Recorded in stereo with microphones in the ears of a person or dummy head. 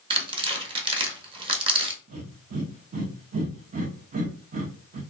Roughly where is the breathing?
Right.